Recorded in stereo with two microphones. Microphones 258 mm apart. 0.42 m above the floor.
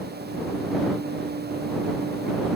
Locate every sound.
Only background noise.